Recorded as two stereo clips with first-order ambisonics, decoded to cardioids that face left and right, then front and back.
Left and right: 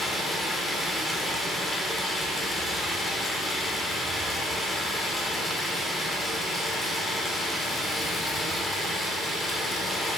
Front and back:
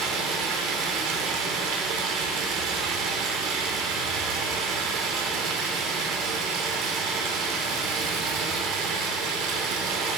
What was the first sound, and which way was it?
Running water, 175° left.